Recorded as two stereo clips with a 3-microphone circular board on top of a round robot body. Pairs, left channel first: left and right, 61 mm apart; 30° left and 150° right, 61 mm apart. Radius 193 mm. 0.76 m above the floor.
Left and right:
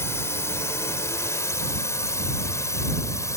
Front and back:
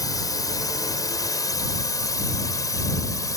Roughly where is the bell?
I don't hear a bell.